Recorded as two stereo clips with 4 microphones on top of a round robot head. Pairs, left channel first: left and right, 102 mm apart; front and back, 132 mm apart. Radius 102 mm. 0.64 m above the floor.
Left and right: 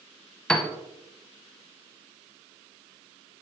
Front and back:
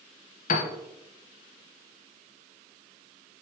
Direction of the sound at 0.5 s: 10° left.